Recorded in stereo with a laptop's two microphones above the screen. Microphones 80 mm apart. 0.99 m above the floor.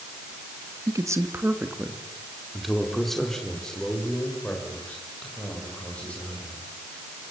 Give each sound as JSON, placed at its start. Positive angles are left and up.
{"t": 0.9, "sound": "a man speaking", "side_deg": -45, "distance_m": 1.2}